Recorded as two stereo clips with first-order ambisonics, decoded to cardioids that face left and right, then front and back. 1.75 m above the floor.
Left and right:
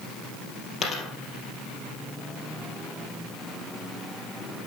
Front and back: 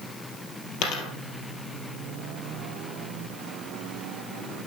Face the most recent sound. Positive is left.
turn(degrees=15)